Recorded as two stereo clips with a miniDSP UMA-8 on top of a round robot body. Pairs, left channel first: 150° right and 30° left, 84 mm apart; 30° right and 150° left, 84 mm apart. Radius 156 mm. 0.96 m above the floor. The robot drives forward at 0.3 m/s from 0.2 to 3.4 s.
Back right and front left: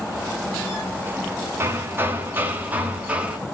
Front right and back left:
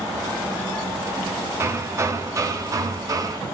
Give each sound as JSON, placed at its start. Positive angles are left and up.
{"t": 1.6, "sound": "hammering", "azimuth_deg": 95, "distance_m": 2.0}